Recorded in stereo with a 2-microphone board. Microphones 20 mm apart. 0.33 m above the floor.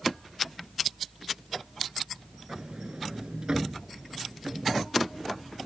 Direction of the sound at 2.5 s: 45° right (ahead or behind).